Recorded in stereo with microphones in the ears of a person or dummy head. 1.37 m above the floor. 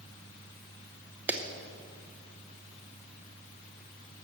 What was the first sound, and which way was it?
A clap, 10° right (ahead or behind).